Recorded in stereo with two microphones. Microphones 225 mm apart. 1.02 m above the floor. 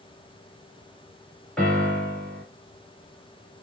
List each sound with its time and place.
1.6 s a piano: 5° left (ahead or behind), 2 m